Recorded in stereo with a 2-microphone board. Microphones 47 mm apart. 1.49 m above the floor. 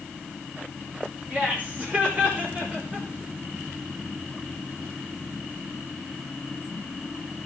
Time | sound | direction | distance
1.3 | laughter | 25° right (ahead or behind) | 4.5 m